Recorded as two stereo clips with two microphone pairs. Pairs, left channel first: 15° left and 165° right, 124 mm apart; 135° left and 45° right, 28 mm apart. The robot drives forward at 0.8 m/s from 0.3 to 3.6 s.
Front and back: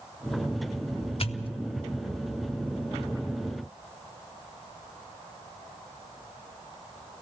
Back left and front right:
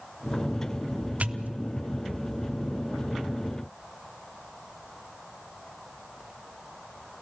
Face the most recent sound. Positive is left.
turn(degrees=-165)